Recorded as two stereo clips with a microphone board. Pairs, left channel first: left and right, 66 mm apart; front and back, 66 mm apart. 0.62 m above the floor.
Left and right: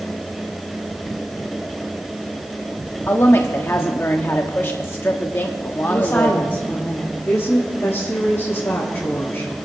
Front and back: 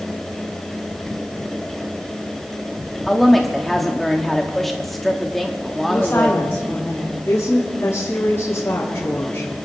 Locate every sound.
3.1 s a woman speaking: 85° left, 0.9 m
5.9 s a woman speaking: 45° left, 1.9 m
7.3 s a woman speaking: 40° left, 2.5 m